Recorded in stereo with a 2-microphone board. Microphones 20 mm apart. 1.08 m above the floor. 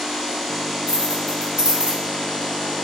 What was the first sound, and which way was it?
Keys jangling, 75° right (ahead or behind).